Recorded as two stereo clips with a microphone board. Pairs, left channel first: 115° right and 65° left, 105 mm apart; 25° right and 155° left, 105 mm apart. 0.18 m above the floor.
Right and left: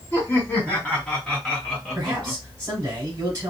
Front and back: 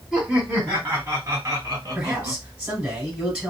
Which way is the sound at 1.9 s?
85° left.